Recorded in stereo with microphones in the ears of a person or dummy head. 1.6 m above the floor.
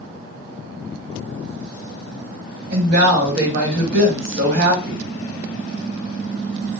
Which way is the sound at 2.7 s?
55° right (ahead or behind).